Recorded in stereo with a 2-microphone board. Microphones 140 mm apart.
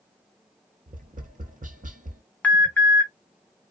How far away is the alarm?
About 0.8 m.